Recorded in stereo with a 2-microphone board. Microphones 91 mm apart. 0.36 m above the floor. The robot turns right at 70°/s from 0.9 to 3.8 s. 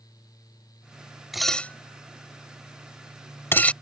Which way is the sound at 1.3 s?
5° right (ahead or behind).